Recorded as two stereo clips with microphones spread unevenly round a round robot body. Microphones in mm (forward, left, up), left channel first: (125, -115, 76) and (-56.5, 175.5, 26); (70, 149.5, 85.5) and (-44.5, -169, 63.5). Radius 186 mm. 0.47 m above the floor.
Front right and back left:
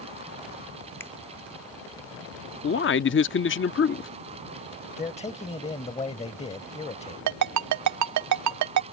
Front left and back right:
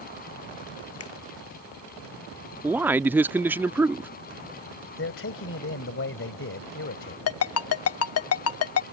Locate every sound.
1.0 s a finger snap: 30° left
2.6 s a man speaking: 40° right
5.0 s a man speaking: 15° left
7.3 s a ringtone: 115° left